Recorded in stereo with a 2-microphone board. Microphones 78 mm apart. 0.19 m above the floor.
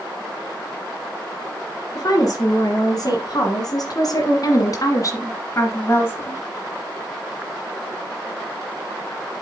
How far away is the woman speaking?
About 3 m.